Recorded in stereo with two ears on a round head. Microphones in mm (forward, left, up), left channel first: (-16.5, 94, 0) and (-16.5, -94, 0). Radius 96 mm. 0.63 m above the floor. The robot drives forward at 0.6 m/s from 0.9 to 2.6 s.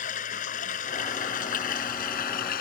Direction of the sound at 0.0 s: 35° left (ahead or behind).